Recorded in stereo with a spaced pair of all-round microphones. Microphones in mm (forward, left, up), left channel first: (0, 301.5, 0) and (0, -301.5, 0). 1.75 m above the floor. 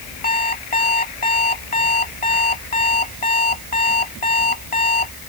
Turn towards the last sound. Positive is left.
turn(degrees=60)  # may be behind; listen again after turning